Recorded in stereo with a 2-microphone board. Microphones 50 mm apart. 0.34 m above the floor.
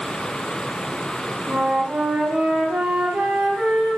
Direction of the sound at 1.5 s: 15° right (ahead or behind).